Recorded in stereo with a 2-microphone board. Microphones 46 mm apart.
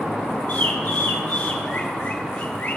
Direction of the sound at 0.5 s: 45° left (ahead or behind).